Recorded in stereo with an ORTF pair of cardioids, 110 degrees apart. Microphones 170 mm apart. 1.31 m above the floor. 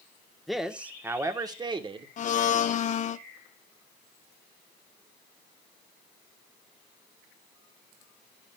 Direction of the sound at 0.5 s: Straight ahead.